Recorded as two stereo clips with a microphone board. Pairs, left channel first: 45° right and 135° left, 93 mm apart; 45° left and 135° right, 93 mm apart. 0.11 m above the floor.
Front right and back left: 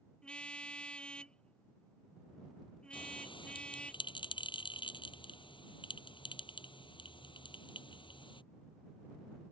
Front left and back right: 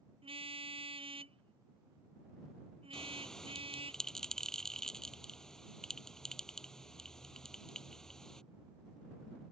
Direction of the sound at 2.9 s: 40° right.